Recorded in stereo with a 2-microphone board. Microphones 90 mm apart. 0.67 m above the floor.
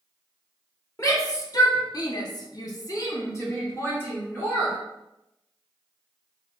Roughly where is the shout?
Left.